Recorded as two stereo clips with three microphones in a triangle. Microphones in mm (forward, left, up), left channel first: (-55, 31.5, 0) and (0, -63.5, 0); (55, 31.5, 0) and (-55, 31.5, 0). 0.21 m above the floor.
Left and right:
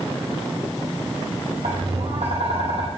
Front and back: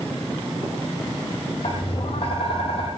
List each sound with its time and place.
1.6 s tapping: 35° right, 4.5 m